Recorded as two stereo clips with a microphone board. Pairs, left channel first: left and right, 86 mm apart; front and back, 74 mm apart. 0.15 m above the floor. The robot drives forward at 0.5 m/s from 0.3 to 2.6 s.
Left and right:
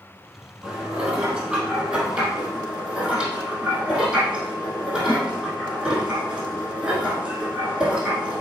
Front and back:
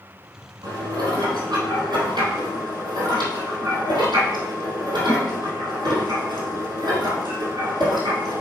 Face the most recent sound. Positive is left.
turn(degrees=-175)